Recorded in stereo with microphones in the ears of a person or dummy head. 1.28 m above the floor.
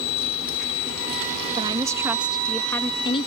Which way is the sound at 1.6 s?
25° right (ahead or behind).